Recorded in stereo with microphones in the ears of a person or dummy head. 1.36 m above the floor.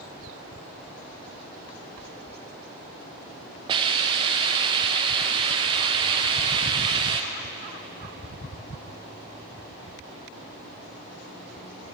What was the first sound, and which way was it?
A hiss, 25° right (ahead or behind).